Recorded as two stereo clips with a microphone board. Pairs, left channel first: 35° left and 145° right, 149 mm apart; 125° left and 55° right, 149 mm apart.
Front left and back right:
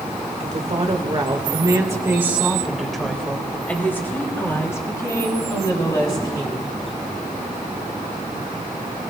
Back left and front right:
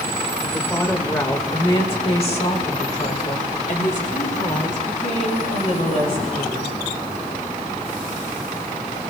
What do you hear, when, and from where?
0.4 s a woman speaking: 150° right, 1.8 m; by 6.8 s 95° left, 4 m